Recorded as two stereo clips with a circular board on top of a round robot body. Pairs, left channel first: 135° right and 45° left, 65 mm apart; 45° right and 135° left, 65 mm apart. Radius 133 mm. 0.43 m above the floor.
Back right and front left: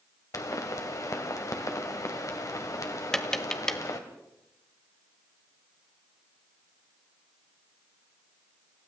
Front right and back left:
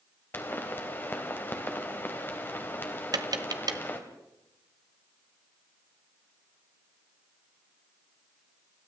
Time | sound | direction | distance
0.3 | a pop | 100° right | 2.5 m
3.1 | tapping | 145° left | 1.4 m